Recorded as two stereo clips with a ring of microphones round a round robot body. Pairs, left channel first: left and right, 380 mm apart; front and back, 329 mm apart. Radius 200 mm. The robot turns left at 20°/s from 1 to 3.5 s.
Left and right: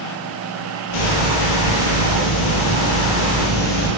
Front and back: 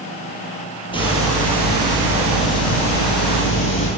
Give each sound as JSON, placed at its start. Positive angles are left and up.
{"t": 0.9, "sound": "a hiss", "azimuth_deg": 75, "distance_m": 4.5}